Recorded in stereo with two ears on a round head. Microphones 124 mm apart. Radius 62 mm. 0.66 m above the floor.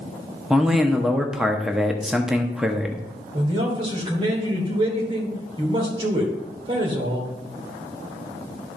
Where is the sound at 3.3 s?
35° right (ahead or behind), 3 m.